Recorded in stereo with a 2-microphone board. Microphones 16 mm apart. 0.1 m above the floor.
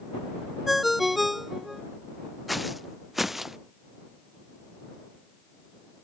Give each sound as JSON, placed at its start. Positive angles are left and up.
{"t": 0.7, "sound": "a ringtone", "side_deg": -5}
{"t": 2.5, "sound": "footsteps", "side_deg": -5}